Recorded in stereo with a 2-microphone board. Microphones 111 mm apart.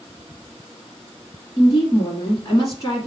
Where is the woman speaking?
35° left (ahead or behind), 1.3 m.